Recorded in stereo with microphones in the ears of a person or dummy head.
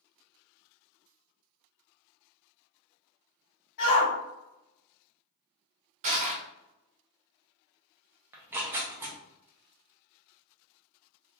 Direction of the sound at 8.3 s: 10° right (ahead or behind).